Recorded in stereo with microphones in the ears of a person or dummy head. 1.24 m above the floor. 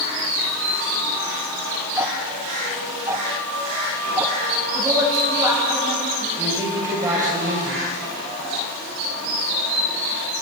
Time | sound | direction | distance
2.0 | ticking | 15° right (ahead or behind) | 1.5 m
4.7 | a woman speaking | 15° right (ahead or behind) | 8.5 m
6.4 | a man speaking | 15° right (ahead or behind) | 5.5 m